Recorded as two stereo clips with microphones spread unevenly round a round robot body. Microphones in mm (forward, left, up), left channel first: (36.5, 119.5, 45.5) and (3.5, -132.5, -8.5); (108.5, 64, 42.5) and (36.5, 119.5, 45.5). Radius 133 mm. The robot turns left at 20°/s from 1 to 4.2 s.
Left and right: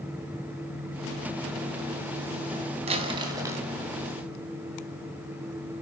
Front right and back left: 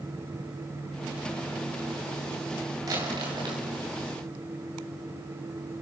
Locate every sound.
2.9 s crumpling: 160° right, 3 m; by 3.6 s 175° right, 3 m